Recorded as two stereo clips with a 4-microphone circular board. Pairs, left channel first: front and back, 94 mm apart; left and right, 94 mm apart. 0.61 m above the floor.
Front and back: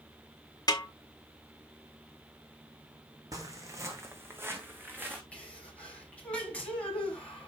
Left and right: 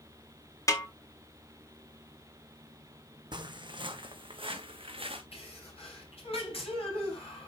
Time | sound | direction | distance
0.7 | a snare drum | 40° left | 1.5 m
3.3 | footsteps | 130° right | 1.8 m
5.3 | a sneeze | 80° left | 4.5 m